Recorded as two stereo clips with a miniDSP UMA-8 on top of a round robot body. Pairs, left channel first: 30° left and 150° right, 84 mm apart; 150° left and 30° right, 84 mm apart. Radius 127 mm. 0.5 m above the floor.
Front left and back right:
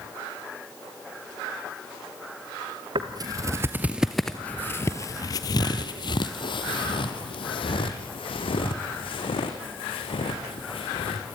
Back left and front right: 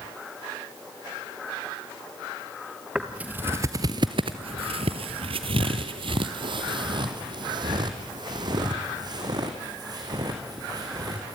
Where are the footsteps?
110° right, 0.9 m; by 11.3 s 15° left, 4 m.